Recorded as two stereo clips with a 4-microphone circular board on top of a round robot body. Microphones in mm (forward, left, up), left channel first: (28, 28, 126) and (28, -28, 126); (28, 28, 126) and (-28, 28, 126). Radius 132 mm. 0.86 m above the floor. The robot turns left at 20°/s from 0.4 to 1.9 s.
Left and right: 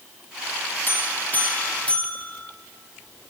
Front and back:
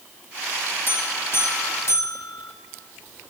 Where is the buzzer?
45° left, 1.6 m; by 2.5 s 25° left, 1.6 m.